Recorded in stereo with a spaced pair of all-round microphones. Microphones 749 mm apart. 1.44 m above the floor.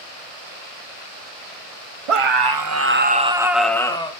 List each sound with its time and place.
2.1 s a scream: 50° right (ahead or behind), 0.7 m; by 4.1 s 5° left (ahead or behind), 1.4 m